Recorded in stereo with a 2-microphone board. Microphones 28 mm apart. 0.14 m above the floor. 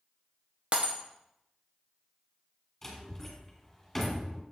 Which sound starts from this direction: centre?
A door slam, at 2.8 s.